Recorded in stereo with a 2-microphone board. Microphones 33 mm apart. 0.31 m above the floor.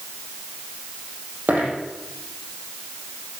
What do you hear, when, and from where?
1.5 s a dropped coin: 60° right (ahead or behind), 5 m